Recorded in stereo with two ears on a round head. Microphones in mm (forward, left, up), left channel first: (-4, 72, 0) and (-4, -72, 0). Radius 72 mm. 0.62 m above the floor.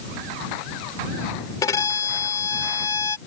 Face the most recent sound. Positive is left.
turn(degrees=20)  # may be behind; listen again after turning